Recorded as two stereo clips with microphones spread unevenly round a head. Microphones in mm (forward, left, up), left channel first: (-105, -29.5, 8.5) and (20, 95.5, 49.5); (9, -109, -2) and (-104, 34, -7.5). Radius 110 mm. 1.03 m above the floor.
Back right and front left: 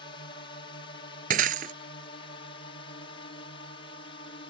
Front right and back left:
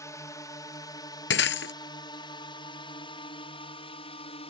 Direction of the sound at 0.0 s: 115° right.